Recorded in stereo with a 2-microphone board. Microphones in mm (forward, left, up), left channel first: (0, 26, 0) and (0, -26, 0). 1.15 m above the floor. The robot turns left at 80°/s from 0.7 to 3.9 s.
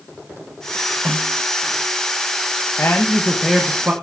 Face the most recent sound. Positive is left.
turn(degrees=-35)